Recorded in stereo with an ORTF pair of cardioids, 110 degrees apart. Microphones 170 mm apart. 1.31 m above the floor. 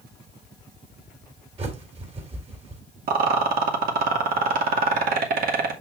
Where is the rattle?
60° right, 2.5 m.